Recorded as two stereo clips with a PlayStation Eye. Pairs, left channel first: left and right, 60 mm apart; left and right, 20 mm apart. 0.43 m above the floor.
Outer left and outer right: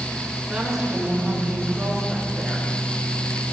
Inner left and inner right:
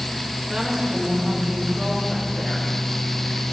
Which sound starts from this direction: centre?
A woman speaking, at 0.5 s.